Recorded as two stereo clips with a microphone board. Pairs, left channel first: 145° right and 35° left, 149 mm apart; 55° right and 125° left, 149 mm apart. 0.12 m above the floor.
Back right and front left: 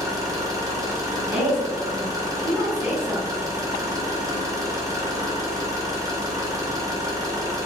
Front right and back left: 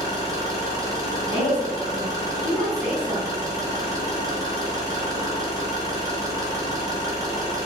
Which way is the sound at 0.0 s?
80° left.